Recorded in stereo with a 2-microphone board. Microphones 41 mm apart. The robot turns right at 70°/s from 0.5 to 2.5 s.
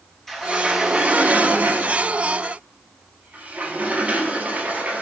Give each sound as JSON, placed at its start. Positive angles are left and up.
{"t": 0.3, "sound": "a sliding door", "azimuth_deg": 175, "distance_m": 3.0}